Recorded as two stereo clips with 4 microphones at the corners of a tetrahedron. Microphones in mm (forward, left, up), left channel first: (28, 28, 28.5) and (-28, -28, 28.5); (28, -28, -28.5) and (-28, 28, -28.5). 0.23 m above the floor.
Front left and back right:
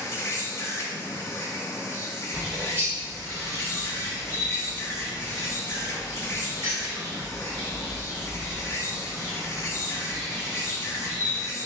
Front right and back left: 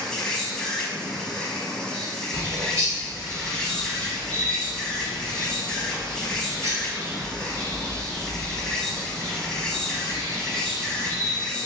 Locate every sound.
0.0 s an insect: 30° left, 0.7 m
2.3 s a bird: 170° left, 1.1 m